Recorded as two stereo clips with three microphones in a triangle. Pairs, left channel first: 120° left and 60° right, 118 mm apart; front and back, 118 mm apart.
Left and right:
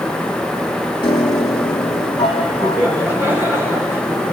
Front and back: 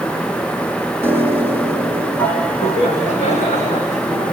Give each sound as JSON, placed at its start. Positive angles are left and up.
{"t": 1.0, "sound": "a piano", "azimuth_deg": 75, "distance_m": 3.5}
{"t": 2.6, "sound": "laughter", "azimuth_deg": 15, "distance_m": 8.0}